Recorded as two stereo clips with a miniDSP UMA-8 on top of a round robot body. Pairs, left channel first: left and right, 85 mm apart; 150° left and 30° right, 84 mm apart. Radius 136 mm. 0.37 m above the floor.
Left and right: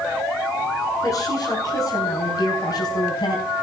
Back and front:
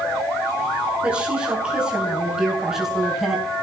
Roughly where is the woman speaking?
Ahead left.